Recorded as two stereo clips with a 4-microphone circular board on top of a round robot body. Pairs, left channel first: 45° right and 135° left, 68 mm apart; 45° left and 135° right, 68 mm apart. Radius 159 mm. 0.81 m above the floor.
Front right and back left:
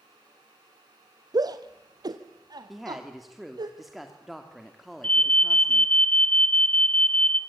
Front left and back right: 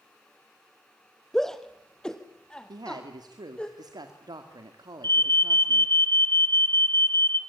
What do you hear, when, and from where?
1.3 s a shout: 130° left, 1.1 m; by 3.7 s 120° left, 2.5 m
2.7 s a woman speaking: 135° right, 2.5 m
5.0 s an alarm: 20° left, 2 m